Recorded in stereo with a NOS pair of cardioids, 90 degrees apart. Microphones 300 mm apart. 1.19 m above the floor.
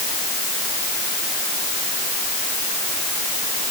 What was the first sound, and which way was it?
Only background noise.